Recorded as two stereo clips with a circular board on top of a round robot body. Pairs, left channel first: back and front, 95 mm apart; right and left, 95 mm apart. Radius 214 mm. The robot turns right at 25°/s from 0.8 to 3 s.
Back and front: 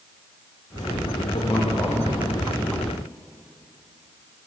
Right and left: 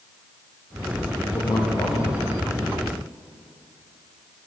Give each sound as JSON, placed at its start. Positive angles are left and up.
{"t": 1.3, "sound": "a man speaking", "azimuth_deg": -140, "distance_m": 1.6}